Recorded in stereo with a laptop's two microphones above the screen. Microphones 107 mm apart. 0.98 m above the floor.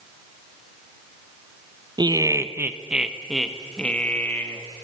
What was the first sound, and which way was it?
Laughter, 40° right (ahead or behind).